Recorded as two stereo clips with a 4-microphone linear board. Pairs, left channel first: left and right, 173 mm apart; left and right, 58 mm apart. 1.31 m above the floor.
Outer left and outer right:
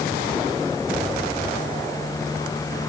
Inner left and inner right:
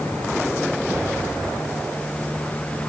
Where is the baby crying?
No baby crying in this recording.